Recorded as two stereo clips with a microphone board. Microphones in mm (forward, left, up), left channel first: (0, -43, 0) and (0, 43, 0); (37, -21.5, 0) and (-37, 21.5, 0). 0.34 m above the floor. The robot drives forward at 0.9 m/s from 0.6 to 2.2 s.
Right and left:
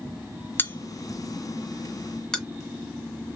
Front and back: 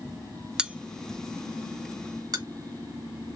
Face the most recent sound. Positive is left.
turn(degrees=-170)